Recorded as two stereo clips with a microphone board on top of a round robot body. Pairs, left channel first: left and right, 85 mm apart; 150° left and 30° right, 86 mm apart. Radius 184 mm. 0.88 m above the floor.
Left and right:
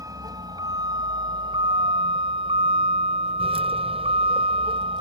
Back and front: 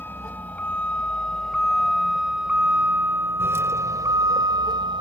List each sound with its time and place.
0.0 s a vehicle: 140° right; by 5.0 s 65° right